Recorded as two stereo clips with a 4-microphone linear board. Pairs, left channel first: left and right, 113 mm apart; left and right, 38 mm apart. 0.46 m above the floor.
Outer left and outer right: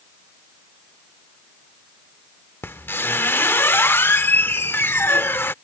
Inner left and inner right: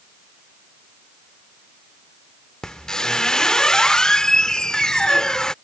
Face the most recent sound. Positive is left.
turn(degrees=20)  # may be behind; listen again after turning